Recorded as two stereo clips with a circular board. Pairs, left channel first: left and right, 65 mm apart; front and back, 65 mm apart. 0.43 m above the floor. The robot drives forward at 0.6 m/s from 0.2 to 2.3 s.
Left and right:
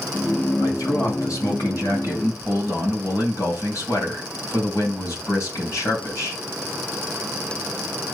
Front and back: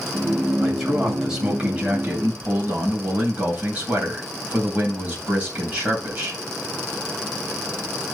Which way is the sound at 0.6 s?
90° left.